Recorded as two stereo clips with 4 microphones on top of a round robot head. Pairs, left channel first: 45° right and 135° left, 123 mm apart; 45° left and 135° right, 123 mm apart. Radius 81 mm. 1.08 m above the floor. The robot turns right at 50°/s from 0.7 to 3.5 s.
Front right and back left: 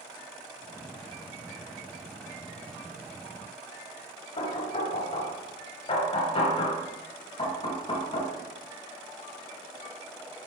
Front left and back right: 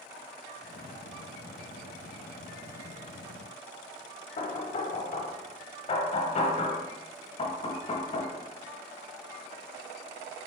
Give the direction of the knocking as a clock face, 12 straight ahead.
12 o'clock.